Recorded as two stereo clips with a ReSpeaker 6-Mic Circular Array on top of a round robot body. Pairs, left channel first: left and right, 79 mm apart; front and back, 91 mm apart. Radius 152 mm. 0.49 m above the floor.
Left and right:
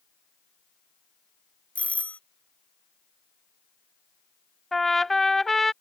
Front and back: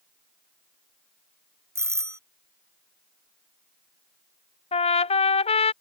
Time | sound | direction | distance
1.8 | a doorbell | 150° left | ?
4.7 | a trumpet | 5° left | ?